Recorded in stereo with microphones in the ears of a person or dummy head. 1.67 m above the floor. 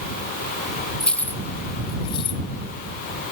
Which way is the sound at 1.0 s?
5° left (ahead or behind).